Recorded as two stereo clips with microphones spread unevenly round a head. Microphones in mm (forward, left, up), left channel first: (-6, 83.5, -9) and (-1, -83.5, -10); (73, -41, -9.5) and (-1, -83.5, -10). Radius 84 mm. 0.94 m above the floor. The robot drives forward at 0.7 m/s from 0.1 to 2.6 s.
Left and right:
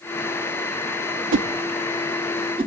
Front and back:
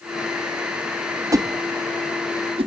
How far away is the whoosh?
About 0.6 m.